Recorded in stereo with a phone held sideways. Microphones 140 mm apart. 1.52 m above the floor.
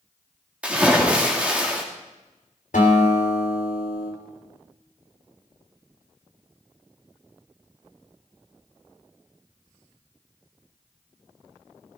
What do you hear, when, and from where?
0.6 s a splash: 10° right (ahead or behind), 2 m
2.7 s a guitar: 75° left (ahead or behind), 3 m